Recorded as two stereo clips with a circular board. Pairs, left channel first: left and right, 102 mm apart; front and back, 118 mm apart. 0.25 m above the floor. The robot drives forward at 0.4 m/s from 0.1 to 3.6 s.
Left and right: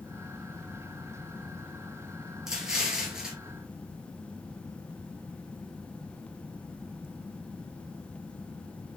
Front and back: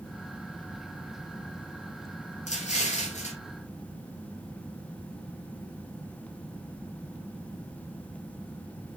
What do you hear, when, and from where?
2.5 s an explosion: 5° right, 3 m